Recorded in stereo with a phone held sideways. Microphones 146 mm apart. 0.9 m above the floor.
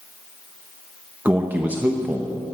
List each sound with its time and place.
1.2 s a man speaking: 10° right (ahead or behind), 0.9 m